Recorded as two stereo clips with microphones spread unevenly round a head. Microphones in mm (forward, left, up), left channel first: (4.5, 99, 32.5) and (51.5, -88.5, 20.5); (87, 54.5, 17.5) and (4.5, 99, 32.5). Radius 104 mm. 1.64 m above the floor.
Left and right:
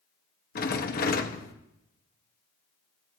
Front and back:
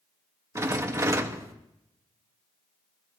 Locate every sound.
0.6 s a rattle: 120° left, 1.2 m